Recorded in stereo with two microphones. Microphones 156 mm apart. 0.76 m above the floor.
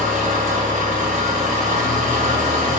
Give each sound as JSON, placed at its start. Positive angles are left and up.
{"t": 0.0, "sound": "an engine running", "side_deg": -55, "distance_m": 0.9}